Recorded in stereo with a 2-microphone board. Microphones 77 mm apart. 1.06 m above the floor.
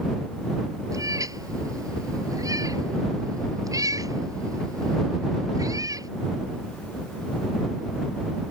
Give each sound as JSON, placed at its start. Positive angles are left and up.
{"t": 0.9, "sound": "a cat meowing", "side_deg": -50}